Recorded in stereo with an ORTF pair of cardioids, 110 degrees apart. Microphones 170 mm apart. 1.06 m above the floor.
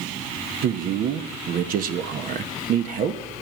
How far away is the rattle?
I don't hear a rattle.